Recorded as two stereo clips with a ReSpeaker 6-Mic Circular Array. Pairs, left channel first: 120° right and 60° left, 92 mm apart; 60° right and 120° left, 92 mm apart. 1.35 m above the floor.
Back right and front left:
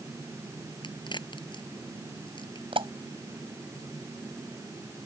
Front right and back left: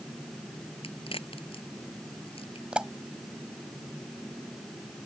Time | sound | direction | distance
0.8 | a crack | 80° right | ?
2.7 | a pop | 40° left | ?